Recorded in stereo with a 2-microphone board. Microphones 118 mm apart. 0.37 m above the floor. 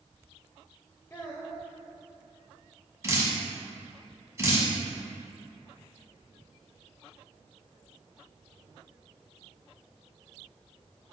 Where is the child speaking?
20° left (ahead or behind), 0.6 m.